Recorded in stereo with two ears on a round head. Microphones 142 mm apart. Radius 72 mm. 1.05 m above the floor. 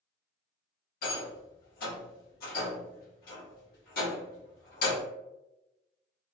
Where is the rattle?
60° left (ahead or behind), 1.1 m.